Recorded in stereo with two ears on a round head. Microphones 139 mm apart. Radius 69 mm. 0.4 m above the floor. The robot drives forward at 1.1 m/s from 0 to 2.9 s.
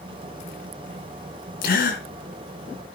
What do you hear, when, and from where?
1.6 s a gasp: 75° left (ahead or behind), 3 m; by 2.0 s 70° left (ahead or behind), 3 m